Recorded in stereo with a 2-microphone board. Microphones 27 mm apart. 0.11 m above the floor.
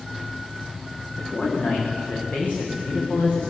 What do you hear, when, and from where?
1.2 s a man speaking: 60° left (ahead or behind), 9.5 m